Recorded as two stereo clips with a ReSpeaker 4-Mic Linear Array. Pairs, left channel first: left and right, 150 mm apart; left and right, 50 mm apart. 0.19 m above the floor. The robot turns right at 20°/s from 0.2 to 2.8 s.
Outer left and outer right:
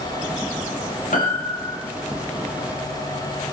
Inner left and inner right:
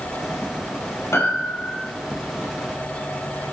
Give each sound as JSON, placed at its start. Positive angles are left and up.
{"t": 1.1, "sound": "a piano", "side_deg": 75, "distance_m": 4.5}